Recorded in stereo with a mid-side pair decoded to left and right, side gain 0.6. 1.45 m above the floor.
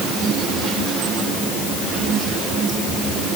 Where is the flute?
I don't hear a flute.